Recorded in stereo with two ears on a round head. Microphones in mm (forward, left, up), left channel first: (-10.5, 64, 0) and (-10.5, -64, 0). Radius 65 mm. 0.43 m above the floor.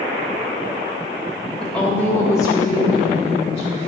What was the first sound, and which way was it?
A woman speaking, 5° left (ahead or behind).